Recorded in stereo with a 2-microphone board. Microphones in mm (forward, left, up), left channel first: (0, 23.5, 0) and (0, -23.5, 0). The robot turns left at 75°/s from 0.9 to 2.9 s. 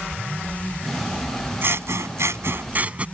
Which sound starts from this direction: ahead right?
Scissors, at 1.6 s.